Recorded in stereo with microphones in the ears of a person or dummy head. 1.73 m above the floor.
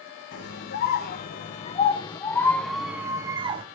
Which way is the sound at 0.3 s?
55° left (ahead or behind).